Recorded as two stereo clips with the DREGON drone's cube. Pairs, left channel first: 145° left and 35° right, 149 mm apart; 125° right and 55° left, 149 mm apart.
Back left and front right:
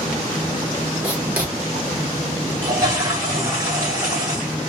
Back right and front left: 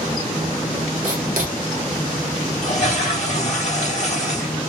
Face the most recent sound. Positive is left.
turn(degrees=-100)